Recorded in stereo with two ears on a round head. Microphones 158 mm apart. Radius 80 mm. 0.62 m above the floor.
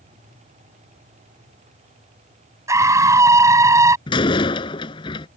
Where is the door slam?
30° left (ahead or behind).